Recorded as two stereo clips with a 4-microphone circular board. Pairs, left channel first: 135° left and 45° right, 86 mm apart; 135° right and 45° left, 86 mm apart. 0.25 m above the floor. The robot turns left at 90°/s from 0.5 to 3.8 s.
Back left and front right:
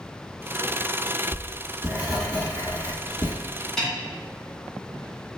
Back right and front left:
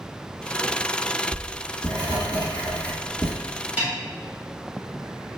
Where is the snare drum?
65° left, 1.0 m.